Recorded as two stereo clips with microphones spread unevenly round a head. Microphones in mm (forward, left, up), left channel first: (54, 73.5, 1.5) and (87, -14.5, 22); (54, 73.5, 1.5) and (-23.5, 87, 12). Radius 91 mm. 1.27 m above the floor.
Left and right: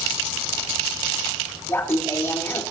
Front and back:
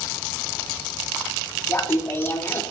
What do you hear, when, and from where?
1.7 s laughter: 50° left, 4 m